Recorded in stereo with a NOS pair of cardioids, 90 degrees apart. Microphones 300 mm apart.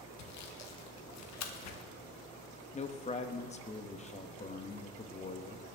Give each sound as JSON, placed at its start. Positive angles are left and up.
{"t": 0.2, "sound": "sawing", "azimuth_deg": 65, "distance_m": 1.3}
{"t": 2.7, "sound": "a man speaking", "azimuth_deg": 20, "distance_m": 1.1}